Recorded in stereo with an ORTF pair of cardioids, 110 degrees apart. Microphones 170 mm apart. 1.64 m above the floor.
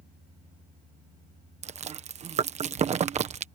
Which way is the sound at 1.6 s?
40° right.